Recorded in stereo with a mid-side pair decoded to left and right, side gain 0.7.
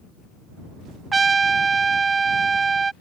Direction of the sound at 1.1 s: 20° right.